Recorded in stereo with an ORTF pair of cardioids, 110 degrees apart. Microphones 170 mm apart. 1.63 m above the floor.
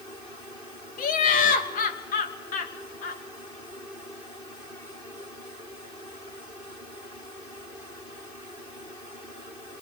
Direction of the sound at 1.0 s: 55° left.